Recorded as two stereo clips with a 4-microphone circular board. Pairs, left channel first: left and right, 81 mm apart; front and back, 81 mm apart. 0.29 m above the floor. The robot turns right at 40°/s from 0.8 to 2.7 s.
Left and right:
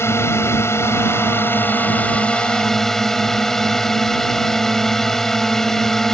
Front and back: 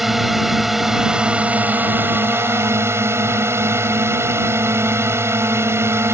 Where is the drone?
95° left; by 6.1 s 170° left.